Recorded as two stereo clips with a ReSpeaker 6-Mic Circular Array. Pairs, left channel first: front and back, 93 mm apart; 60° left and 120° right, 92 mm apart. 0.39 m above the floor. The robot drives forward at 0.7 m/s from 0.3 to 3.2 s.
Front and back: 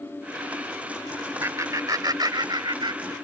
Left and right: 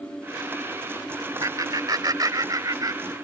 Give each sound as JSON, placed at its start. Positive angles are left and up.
{"t": 1.4, "sound": "laughter", "azimuth_deg": -135}